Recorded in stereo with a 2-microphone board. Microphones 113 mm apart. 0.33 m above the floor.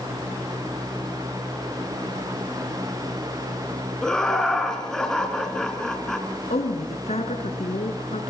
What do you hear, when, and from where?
4.0 s laughter: 5° left (ahead or behind), 4.5 m
6.5 s a woman speaking: 75° left (ahead or behind), 4 m